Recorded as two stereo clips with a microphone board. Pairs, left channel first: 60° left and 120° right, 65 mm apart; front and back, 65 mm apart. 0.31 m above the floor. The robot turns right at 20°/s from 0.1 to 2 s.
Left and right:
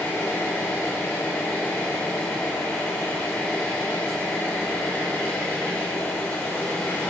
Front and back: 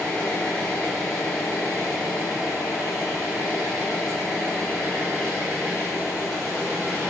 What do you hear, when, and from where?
0.0 s an engine running: 60° left, 1.4 m; by 7.1 s 100° left, 1.4 m